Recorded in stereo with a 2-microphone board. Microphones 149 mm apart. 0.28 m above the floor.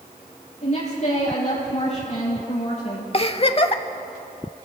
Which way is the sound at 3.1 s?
40° left (ahead or behind).